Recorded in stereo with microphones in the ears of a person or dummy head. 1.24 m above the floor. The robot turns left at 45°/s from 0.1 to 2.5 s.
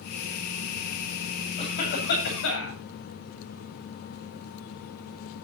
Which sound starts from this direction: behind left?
A cough, at 1.6 s.